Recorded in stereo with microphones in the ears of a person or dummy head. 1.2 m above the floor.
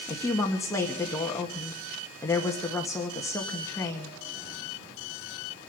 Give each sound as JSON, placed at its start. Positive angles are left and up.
{"t": 0.1, "sound": "a woman speaking", "side_deg": 20, "distance_m": 1.6}